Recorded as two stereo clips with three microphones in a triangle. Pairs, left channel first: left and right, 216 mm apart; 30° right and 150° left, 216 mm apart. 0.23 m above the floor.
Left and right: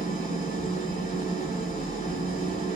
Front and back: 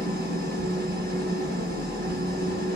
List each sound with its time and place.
0.0 s an engine running: 125° left, 2 m